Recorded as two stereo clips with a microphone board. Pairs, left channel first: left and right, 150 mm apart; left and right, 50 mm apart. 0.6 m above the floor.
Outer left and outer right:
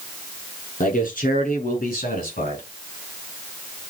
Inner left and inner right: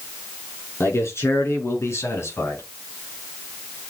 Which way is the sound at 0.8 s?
70° left (ahead or behind).